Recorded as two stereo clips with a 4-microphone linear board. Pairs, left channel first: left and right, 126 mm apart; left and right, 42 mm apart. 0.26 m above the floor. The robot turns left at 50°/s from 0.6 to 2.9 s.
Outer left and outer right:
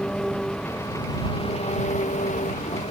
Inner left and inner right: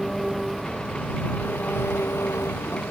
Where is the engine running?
175° left; by 2.9 s 60° left.